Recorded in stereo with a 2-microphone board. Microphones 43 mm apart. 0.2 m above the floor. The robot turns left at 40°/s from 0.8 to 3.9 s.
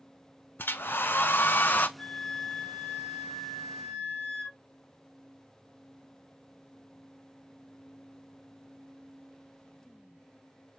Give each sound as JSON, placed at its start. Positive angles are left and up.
{"t": 0.6, "sound": "a hair dryer", "azimuth_deg": 95, "distance_m": 0.6}
{"t": 2.0, "sound": "a flute", "side_deg": 25, "distance_m": 1.3}